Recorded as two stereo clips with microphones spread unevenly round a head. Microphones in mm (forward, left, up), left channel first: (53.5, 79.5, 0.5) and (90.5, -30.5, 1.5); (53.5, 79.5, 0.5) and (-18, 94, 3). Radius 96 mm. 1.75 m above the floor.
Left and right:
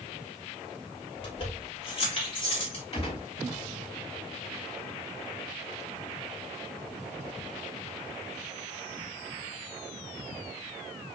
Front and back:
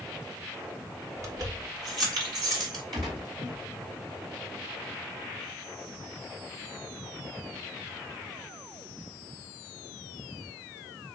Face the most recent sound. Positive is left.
turn(degrees=175)